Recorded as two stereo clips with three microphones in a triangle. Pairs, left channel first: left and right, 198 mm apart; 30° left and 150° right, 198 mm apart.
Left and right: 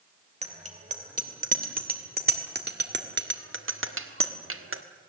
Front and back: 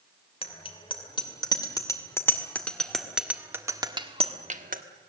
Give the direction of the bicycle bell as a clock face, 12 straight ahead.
1 o'clock.